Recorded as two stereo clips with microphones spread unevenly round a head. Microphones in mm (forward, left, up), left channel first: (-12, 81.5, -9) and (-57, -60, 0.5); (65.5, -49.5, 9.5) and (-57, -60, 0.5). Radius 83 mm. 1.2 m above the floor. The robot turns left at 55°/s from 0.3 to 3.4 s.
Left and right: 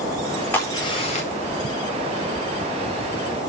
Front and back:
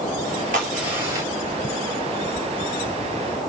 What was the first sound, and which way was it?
A crack, 150° left.